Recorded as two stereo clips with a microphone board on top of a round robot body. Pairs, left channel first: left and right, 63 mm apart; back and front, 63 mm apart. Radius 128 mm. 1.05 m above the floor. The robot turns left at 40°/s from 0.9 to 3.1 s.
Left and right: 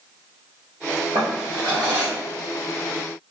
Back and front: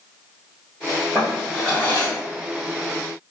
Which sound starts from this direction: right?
A drawer, at 1.1 s.